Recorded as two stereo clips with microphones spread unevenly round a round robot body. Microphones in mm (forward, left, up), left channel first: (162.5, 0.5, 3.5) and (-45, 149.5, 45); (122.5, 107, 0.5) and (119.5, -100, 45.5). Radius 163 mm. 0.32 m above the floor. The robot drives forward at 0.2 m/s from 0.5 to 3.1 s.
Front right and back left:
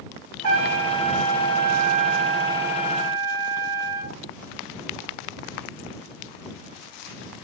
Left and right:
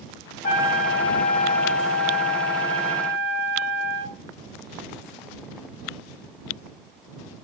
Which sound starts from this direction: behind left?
A trumpet, at 0.4 s.